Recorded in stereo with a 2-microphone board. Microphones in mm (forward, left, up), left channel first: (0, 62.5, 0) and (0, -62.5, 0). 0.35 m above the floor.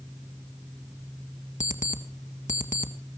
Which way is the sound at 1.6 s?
75° left (ahead or behind).